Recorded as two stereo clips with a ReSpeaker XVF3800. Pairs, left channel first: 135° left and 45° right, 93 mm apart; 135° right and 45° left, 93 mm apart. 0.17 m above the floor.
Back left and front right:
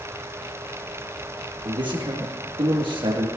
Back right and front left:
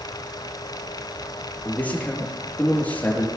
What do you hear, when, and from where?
1.6 s a man speaking: 65° right, 5 m